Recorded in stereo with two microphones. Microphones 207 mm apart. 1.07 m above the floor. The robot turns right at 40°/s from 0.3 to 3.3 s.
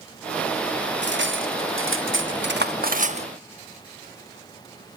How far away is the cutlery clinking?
About 1.0 m.